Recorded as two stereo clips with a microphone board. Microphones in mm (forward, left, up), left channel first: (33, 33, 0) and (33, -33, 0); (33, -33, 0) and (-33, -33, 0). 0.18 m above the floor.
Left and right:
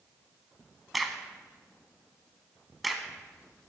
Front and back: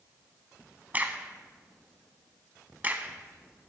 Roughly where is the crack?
Behind.